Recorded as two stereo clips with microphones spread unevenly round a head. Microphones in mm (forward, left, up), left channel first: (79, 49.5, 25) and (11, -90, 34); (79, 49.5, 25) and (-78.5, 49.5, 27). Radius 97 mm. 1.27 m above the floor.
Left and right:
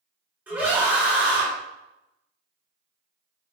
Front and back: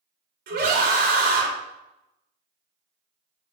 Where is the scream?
165° left, 3.5 m.